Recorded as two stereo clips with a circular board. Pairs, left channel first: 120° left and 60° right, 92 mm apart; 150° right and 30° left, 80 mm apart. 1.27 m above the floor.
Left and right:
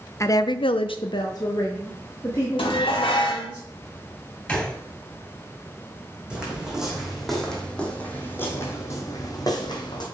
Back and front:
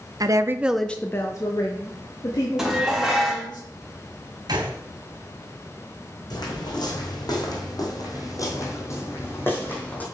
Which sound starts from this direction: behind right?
Footsteps, at 6.3 s.